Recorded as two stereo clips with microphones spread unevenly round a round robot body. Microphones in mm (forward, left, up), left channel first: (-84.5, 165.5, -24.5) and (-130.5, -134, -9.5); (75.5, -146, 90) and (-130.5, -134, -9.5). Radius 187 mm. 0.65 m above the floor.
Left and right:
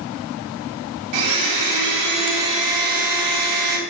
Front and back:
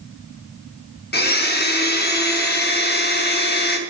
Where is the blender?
60° right, 0.8 m.